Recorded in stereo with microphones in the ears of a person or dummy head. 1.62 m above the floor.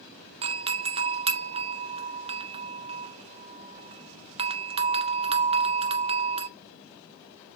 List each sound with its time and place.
0.4 s a doorbell: 30° right (ahead or behind), 0.8 m